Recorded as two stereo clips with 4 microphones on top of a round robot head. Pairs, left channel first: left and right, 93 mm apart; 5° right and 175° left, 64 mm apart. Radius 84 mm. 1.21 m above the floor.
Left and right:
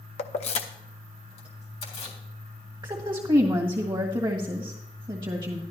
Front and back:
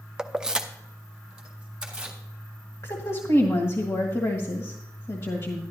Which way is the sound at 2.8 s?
45° right.